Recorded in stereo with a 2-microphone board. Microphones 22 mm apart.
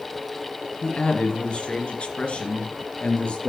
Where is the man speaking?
55° left (ahead or behind), 2.0 m; by 3.5 s 65° left (ahead or behind), 3.5 m.